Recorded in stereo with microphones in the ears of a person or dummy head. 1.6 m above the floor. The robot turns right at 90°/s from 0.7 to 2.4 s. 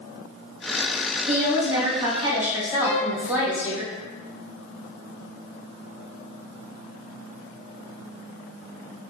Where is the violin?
25° right (ahead or behind), 2.0 m.